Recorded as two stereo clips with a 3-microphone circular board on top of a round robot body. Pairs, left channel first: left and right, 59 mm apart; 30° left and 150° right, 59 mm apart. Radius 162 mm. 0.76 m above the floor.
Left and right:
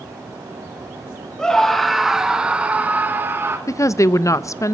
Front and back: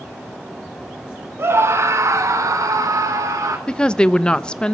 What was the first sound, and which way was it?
A scream, 170° left.